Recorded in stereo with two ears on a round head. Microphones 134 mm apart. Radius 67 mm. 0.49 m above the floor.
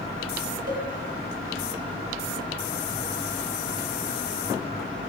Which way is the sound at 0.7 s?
70° right (ahead or behind).